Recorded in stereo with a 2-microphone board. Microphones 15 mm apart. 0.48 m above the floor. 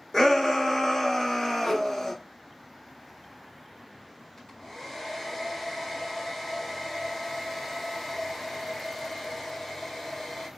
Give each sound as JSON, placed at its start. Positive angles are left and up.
{"t": 0.1, "sound": "a shout", "side_deg": 30, "distance_m": 1.0}
{"t": 1.6, "sound": "a whoosh", "side_deg": 55, "distance_m": 1.2}
{"t": 4.4, "sound": "a hair dryer", "side_deg": 35, "distance_m": 2.0}